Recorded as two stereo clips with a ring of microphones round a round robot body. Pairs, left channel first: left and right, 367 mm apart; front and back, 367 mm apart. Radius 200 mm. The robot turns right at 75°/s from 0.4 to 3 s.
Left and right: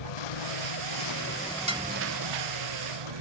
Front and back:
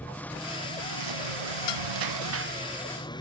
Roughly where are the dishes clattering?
Ahead.